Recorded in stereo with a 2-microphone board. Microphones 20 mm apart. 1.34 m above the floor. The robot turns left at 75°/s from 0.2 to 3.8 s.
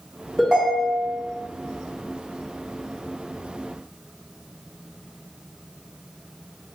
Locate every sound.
0.4 s a ringtone: 5° right, 1.9 m; by 1.2 s 65° right, 1.9 m